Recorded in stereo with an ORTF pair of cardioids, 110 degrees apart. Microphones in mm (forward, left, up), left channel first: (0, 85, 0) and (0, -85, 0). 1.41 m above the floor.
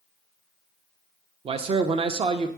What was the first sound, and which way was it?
A man speaking, 35° right.